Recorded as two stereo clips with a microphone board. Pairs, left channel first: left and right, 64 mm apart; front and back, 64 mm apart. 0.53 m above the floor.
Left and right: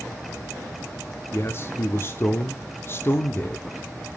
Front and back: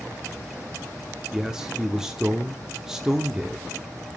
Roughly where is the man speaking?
Left.